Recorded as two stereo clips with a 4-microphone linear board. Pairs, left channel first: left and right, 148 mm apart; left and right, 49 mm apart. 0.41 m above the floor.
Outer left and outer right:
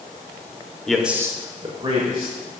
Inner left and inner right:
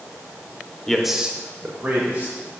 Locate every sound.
0.9 s a man speaking: 5° left (ahead or behind), 0.9 m; by 2.3 s 40° right (ahead or behind), 1.9 m